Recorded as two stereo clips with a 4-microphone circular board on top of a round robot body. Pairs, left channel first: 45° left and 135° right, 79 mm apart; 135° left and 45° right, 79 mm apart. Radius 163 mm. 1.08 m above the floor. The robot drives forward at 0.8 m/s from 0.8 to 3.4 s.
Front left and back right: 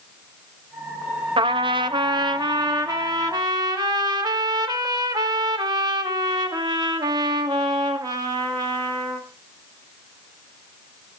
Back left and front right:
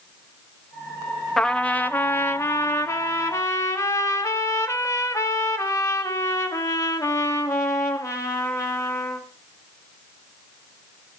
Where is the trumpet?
140° right, 0.6 m; by 9.3 s 170° right, 2 m.